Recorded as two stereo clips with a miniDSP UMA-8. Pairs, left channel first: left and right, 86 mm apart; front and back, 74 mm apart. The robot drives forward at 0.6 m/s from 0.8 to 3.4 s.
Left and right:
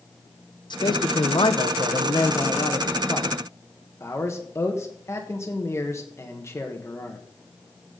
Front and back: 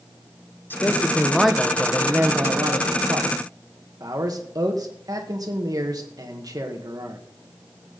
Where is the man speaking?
60° left, 0.9 m; by 7.2 s 150° left, 1.4 m.